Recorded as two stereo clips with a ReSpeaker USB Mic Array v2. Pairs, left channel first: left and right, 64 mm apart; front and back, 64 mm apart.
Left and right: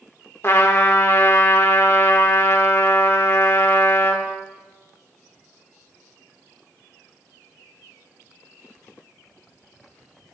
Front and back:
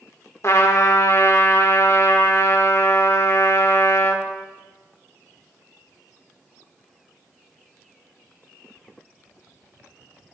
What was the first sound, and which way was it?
A trumpet, 40° left.